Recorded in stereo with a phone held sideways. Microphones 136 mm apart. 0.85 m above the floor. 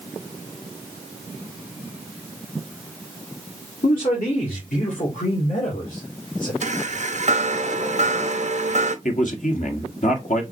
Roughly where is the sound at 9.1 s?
Left.